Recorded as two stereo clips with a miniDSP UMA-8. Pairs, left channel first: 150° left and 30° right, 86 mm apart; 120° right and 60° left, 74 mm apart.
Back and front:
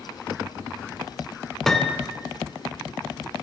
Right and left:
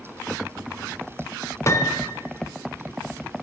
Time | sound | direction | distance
1.7 | a piano | 130° right | 0.9 m